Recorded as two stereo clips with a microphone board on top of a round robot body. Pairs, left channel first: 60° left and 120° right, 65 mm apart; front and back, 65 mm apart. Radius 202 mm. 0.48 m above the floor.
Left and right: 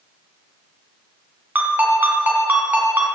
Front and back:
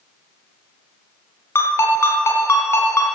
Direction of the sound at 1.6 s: 55° right.